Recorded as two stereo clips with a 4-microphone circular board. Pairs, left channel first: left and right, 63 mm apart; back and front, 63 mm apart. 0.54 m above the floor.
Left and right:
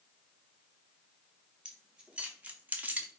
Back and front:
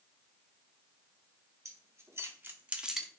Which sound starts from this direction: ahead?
Keys jangling, at 1.6 s.